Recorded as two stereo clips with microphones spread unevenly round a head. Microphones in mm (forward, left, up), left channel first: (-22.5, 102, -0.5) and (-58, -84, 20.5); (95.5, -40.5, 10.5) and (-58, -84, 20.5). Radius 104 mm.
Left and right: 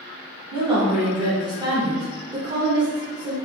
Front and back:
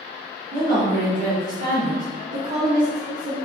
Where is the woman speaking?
165° right, 1.1 m.